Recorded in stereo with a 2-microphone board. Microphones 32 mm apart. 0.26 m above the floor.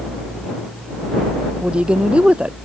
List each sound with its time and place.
1.6 s a woman speaking: 35° right (ahead or behind)